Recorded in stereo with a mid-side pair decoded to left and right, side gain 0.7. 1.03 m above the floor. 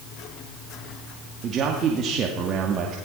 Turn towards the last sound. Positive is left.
turn(degrees=-40)